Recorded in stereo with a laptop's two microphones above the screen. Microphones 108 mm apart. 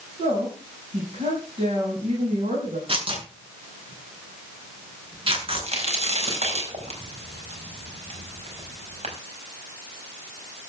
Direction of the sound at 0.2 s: 70° right (ahead or behind).